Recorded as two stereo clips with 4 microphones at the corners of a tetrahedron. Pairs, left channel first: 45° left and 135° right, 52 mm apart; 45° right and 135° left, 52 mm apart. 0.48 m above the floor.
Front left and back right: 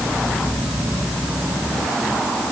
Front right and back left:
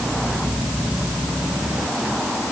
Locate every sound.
Only background noise.